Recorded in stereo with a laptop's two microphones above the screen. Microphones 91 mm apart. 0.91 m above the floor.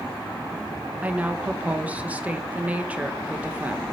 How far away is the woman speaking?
About 0.8 m.